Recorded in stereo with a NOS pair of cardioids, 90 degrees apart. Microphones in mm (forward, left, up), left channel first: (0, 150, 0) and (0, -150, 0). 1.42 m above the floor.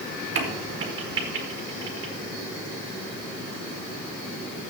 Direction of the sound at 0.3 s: 45° right.